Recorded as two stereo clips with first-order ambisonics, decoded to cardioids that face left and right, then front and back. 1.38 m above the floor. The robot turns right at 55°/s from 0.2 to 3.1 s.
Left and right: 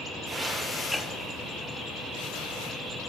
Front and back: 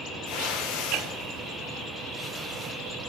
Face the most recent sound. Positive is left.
turn(degrees=140)